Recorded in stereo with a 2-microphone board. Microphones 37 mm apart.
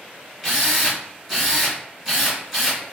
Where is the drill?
10° right (ahead or behind), 1.6 m.